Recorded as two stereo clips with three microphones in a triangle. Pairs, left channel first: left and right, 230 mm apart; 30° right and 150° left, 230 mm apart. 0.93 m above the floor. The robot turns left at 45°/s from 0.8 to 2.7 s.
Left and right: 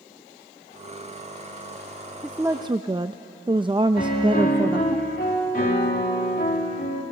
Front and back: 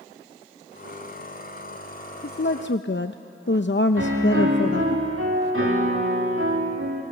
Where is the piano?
135° left, 2.5 m.